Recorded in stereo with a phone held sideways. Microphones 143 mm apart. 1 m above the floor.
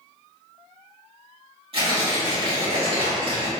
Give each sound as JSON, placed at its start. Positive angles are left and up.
{"t": 1.7, "sound": "tearing paper", "side_deg": -45, "distance_m": 1.8}